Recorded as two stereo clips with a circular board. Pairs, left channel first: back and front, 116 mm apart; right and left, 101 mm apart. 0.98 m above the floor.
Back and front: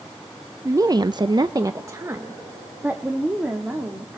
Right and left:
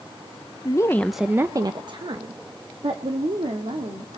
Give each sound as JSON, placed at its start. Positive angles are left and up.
{"t": 0.7, "sound": "a woman speaking", "azimuth_deg": -55, "distance_m": 0.6}